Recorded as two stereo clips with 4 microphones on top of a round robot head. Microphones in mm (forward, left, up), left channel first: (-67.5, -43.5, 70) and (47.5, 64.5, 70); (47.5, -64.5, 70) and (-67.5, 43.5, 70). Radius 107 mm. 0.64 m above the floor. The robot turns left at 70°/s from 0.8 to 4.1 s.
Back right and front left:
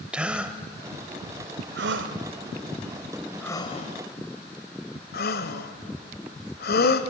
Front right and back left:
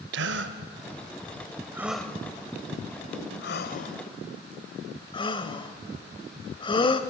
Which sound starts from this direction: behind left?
A gasp, at 0.1 s.